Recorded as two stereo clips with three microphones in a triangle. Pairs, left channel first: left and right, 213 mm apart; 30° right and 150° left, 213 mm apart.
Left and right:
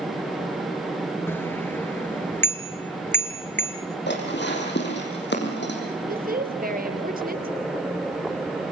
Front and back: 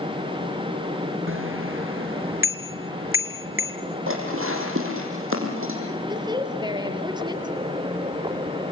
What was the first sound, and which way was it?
A bicycle bell, 170° left.